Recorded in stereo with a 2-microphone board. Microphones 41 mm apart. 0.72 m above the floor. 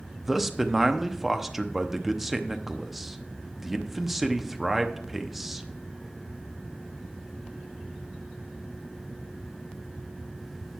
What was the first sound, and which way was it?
A man speaking, 10° right (ahead or behind).